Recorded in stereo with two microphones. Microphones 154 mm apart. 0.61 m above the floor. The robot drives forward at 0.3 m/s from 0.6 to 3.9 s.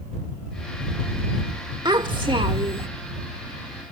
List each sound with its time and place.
1.9 s a child speaking: 30° right (ahead or behind); by 2.9 s 40° right (ahead or behind)